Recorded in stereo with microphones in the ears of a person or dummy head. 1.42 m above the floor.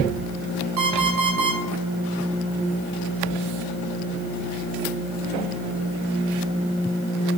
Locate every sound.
0.8 s an alarm clock: 75° right (ahead or behind), 5 m